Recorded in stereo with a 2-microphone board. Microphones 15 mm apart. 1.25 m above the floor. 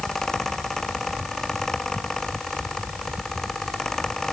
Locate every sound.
Only background noise.